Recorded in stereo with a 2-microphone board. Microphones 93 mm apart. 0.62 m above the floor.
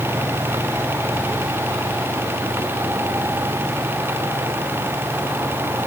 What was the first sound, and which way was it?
Only background noise.